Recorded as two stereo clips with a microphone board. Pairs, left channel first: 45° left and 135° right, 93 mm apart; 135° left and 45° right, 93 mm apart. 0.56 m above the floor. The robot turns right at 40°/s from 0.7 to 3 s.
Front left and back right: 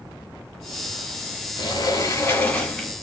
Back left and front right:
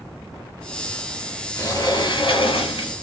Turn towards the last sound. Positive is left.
turn(degrees=135)